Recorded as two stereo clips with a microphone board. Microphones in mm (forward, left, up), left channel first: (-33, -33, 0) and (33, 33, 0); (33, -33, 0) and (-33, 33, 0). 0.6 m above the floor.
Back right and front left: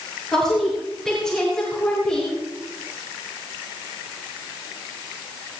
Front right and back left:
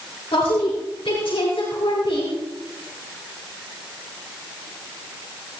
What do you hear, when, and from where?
0.3 s a woman speaking: 50° right, 6.5 m; by 2.4 s 55° right, 5.5 m